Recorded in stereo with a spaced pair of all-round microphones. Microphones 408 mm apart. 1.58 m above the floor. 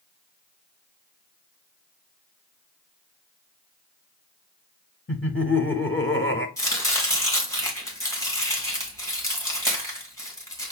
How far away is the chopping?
About 1.7 m.